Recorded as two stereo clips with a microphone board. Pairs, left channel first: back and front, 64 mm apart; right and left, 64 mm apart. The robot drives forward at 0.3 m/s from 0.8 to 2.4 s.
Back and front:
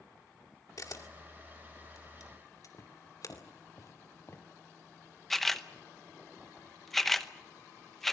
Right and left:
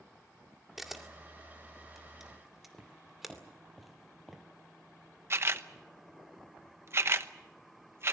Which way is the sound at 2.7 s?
Straight behind.